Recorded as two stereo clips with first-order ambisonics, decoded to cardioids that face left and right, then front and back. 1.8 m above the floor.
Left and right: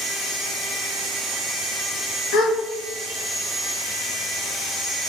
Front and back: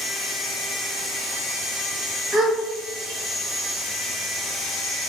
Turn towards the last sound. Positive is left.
turn(degrees=105)